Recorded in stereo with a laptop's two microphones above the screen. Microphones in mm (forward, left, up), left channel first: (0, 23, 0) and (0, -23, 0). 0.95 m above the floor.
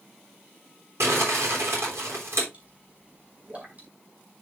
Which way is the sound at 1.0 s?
75° right (ahead or behind).